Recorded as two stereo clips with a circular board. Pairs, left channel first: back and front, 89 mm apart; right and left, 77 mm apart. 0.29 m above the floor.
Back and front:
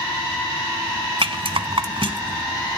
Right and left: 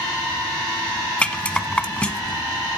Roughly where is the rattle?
Ahead.